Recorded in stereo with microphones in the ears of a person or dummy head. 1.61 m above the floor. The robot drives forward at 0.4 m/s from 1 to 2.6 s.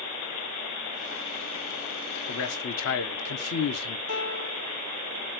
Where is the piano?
80° left, 1.0 m.